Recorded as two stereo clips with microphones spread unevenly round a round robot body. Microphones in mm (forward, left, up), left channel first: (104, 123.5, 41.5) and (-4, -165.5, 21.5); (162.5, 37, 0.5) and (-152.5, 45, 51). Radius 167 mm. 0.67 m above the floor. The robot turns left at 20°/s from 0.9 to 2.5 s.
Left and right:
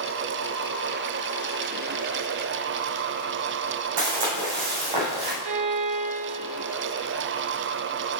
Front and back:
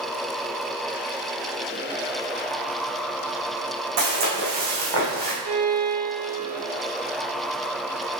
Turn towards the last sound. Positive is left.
turn(degrees=-135)